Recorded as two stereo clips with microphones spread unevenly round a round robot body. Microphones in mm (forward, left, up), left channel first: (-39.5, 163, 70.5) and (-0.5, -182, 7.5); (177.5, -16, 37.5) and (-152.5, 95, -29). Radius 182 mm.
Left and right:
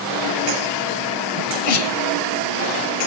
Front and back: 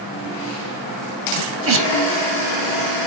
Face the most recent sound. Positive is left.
turn(degrees=110)